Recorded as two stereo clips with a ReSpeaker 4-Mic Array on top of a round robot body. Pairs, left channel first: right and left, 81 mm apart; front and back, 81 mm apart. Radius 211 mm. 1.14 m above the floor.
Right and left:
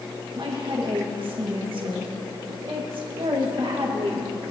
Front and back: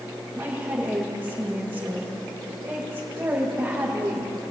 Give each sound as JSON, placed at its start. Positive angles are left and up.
{"t": 0.3, "sound": "a woman speaking", "azimuth_deg": 115, "distance_m": 2.0}